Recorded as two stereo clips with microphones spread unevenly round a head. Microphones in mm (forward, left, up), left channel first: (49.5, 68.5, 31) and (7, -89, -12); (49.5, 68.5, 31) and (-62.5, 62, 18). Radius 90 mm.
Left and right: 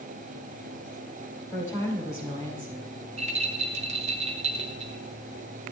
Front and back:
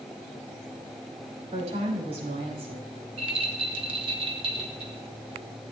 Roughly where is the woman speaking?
Behind left.